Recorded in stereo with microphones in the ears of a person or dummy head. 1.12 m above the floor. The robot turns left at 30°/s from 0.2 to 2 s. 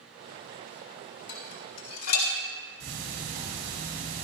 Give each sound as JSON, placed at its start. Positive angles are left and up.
{"t": 1.3, "sound": "dishes clattering", "side_deg": 60, "distance_m": 2.0}
{"t": 2.8, "sound": "ticking", "side_deg": -85, "distance_m": 2.5}